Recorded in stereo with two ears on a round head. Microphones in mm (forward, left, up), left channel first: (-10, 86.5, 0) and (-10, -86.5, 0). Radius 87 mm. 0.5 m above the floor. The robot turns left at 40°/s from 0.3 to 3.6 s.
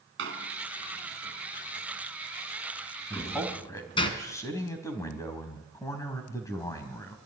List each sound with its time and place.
0.2 s a door slam: 75° right (ahead or behind), 3.5 m; by 4.1 s 30° left (ahead or behind), 3.5 m
3.1 s a man speaking: centre (ahead or behind), 4 m; by 7.2 s 20° left (ahead or behind), 4 m